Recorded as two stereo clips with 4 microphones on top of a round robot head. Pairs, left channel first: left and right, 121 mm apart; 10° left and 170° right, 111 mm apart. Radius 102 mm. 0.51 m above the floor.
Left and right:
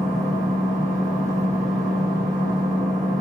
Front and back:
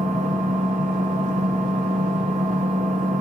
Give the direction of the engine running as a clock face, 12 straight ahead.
6 o'clock.